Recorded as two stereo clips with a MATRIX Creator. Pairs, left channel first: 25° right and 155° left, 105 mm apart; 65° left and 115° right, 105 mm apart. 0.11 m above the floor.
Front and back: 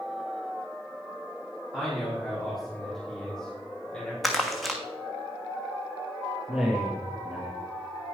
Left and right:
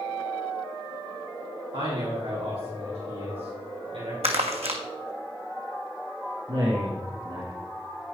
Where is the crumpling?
110° right, 1.6 m.